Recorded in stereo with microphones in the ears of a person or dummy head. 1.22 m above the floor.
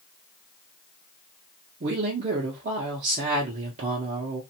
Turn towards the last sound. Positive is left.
turn(degrees=-40)  # may be behind; listen again after turning